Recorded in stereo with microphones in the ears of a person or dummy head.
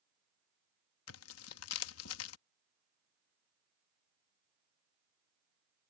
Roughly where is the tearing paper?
Left.